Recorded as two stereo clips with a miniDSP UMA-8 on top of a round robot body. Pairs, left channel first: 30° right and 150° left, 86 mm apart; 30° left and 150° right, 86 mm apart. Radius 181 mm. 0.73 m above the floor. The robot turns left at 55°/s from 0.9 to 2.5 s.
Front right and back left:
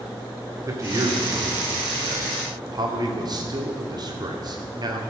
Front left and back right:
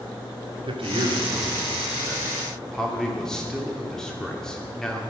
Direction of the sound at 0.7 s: 160° right.